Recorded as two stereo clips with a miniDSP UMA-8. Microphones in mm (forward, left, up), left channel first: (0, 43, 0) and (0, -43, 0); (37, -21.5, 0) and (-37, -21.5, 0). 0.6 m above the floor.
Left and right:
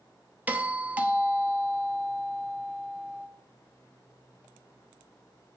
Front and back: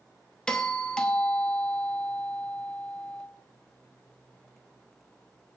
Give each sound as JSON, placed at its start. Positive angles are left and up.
{"t": 0.5, "sound": "a doorbell", "azimuth_deg": -55, "distance_m": 1.0}